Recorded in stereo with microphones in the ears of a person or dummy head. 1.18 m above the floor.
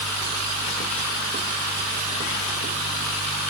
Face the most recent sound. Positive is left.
No sound to turn to.